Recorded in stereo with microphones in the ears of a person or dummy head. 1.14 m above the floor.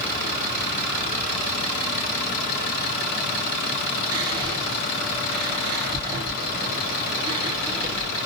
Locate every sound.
4.1 s whispering: 25° right (ahead or behind), 1.6 m